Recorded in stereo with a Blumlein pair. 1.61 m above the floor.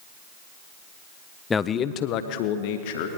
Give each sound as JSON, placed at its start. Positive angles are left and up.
{"t": 1.5, "sound": "a man speaking", "azimuth_deg": 15, "distance_m": 0.7}